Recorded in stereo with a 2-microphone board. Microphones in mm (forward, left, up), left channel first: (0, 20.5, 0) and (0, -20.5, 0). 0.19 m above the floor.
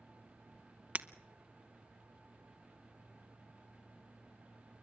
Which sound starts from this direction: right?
Breaking glass, at 0.9 s.